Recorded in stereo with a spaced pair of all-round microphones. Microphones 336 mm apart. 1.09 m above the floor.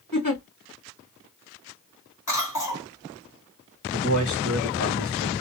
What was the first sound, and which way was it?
A giggle, 70° left (ahead or behind).